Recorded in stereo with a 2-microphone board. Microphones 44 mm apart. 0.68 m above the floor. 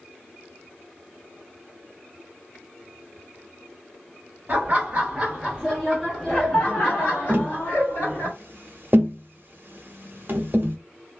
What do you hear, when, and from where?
4.5 s laughter: 30° right (ahead or behind), 1.2 m; by 8.3 s 55° left (ahead or behind), 1.9 m
7.3 s tapping: 50° right (ahead or behind), 0.8 m